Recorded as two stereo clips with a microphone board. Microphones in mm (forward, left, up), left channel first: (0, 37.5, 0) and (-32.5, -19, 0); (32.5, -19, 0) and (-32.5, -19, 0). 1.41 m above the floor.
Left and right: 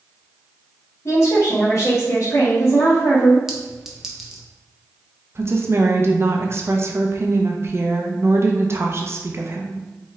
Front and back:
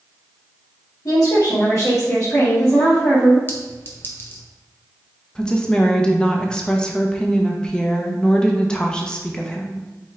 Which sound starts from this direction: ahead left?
A woman speaking, at 1.1 s.